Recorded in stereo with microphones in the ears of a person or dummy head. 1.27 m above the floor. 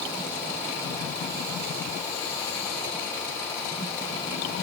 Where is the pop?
I don't hear a pop.